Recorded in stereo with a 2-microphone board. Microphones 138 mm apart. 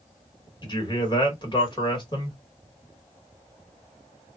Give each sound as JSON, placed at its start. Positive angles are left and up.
{"t": 0.6, "sound": "a man speaking", "side_deg": 35, "distance_m": 1.2}